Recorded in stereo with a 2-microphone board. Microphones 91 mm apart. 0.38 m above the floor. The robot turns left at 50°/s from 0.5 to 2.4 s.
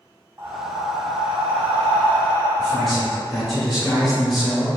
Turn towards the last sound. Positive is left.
turn(degrees=0)  # may be behind; listen again after turning